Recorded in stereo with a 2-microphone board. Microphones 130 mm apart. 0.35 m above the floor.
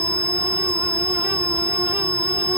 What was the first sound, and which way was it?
Only background noise.